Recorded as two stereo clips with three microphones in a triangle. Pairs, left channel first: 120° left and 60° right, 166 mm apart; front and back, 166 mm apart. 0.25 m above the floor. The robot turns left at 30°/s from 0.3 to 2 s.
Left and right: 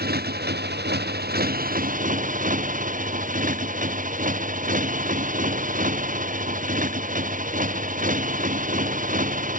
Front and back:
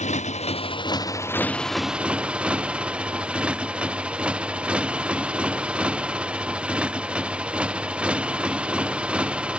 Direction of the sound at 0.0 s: 45° right.